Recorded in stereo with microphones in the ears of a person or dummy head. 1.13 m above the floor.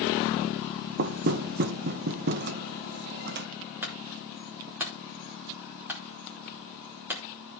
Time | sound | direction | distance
1.0 | knocking | 50° right (ahead or behind) | 0.8 m
3.8 | a clunk | 10° right (ahead or behind) | 2.5 m